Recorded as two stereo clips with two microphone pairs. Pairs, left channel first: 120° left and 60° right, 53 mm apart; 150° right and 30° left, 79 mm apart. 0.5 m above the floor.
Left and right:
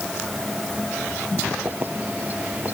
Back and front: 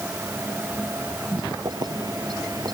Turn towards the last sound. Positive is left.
turn(degrees=0)